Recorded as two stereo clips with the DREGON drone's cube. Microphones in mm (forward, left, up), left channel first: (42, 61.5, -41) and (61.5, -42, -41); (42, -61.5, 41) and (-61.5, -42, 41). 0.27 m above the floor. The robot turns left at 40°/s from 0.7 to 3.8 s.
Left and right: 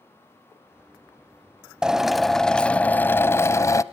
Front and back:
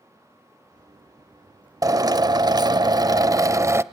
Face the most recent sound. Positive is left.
turn(degrees=125)